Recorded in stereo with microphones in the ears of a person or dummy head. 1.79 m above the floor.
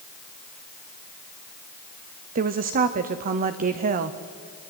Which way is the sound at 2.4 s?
45° right (ahead or behind).